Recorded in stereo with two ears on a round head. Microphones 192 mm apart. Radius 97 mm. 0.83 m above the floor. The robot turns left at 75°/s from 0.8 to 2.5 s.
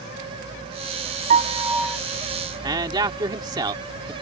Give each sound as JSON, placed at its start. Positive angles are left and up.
{"t": 1.3, "sound": "a piano", "azimuth_deg": -135}
{"t": 2.6, "sound": "a man speaking", "side_deg": -20}